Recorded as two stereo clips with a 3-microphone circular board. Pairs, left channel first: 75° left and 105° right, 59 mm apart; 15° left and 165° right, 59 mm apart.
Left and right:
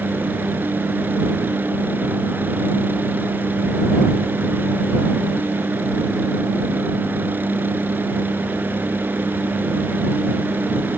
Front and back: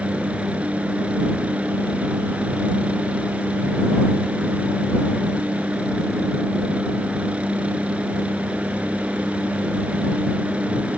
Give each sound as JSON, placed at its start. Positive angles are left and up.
{"t": 0.0, "sound": "a helicopter", "azimuth_deg": -115}